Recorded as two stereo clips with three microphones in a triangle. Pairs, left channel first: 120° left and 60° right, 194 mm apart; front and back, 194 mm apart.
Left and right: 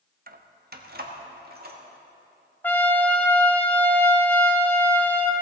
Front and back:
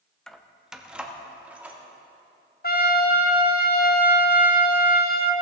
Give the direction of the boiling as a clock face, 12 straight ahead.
No boiling in this recording.